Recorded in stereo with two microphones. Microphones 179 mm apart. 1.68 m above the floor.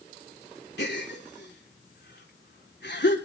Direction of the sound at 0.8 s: 75° left (ahead or behind).